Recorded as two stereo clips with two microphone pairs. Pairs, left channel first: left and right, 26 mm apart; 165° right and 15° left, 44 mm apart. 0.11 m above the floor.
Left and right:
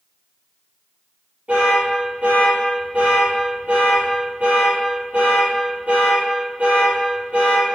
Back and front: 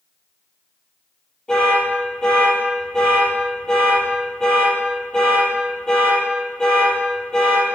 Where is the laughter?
No laughter in this recording.